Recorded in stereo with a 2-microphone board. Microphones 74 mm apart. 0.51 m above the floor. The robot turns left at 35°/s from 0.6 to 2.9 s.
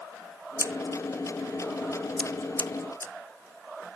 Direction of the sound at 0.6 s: 45° right (ahead or behind).